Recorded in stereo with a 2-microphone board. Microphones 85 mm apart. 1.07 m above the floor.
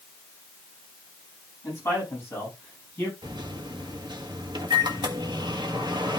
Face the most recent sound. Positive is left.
turn(degrees=-70)  # may be behind; listen again after turning